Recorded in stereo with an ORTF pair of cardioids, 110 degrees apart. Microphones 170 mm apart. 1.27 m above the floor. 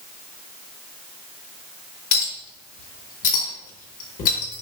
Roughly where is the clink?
Ahead left.